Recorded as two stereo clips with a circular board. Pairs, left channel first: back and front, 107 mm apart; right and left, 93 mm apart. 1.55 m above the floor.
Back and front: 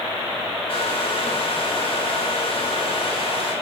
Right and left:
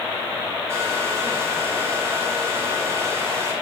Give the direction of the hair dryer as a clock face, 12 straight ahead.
7 o'clock.